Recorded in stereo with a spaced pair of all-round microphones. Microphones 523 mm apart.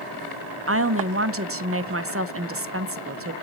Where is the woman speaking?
25° right (ahead or behind), 0.8 m.